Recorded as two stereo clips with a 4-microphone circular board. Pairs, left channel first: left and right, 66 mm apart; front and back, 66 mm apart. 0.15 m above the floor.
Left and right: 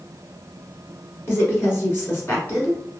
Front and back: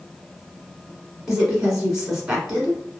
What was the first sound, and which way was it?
A woman speaking, 100° left.